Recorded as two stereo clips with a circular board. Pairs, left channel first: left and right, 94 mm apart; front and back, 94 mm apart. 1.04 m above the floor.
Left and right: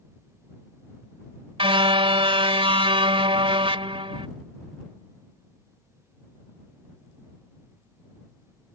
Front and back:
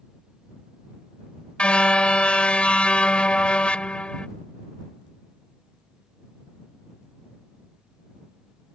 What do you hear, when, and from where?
1.6 s a car horn: 80° right